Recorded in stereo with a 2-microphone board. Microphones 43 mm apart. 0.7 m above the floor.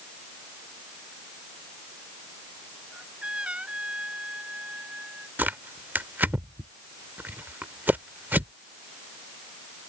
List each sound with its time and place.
2.9 s a trumpet: 25° right (ahead or behind)
5.4 s tearing paper: 50° right (ahead or behind)